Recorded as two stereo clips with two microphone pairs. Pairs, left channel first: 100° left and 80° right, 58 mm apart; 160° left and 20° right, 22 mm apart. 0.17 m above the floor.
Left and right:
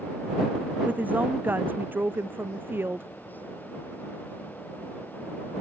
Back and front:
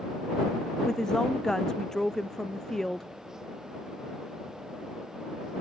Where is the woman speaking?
140° right; by 3.1 s 130° right.